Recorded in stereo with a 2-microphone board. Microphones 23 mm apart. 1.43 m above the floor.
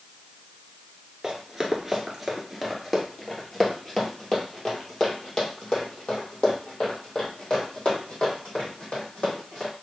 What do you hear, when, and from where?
1.2 s running footsteps: 20° right (ahead or behind), 1.5 m; by 9.7 s 40° left (ahead or behind), 4.5 m